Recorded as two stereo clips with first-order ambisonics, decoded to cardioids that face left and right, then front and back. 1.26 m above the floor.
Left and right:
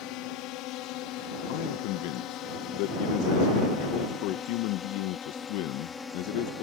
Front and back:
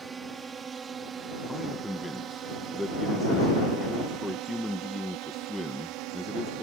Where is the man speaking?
90° left.